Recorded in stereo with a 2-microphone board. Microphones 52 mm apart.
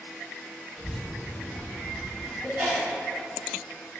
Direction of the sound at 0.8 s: 10° left (ahead or behind).